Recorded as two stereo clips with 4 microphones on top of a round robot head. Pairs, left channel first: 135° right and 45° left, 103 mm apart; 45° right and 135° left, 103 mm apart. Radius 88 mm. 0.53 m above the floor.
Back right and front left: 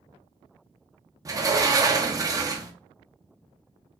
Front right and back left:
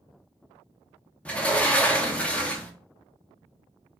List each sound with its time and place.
1.2 s a sliding door: 30° left, 1.0 m